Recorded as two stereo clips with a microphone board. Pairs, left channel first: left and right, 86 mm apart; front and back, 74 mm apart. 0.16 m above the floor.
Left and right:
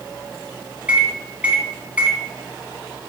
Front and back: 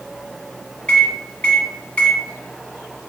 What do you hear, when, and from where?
0.9 s a microwave: 45° right, 0.9 m